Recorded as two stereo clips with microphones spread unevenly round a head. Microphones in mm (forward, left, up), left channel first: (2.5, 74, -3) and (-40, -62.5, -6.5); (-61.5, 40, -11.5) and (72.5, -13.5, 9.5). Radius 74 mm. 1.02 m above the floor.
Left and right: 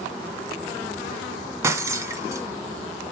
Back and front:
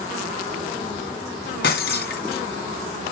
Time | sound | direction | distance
1.6 | breaking glass | 175° right | 2.5 m